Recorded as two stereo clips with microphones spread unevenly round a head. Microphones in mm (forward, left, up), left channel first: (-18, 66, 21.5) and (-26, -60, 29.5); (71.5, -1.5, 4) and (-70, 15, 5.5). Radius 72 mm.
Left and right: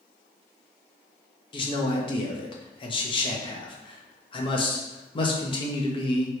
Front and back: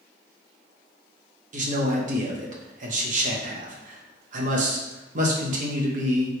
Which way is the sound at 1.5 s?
135° left.